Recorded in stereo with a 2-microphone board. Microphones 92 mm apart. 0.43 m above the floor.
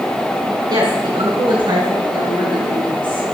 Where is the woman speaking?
60° right (ahead or behind), 4 m; by 3.3 s 55° right (ahead or behind), 5.5 m.